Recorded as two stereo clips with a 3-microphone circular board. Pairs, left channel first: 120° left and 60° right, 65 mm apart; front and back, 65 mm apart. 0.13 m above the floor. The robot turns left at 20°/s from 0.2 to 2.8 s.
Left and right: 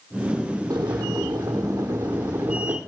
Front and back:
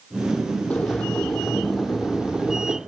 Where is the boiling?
70° right, 1.1 m; by 2.8 s 110° right, 1.1 m.